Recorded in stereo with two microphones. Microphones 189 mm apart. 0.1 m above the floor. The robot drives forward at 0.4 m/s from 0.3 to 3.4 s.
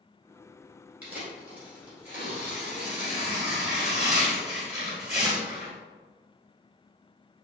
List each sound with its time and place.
1.0 s tearing paper: 10° right (ahead or behind), 1.6 m; by 5.7 s 5° right (ahead or behind), 2 m